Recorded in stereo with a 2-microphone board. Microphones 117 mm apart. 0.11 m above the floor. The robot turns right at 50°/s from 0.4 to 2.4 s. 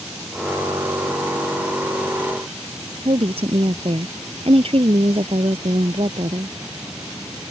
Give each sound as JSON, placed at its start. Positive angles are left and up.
{"t": 3.0, "sound": "a woman speaking", "side_deg": -55}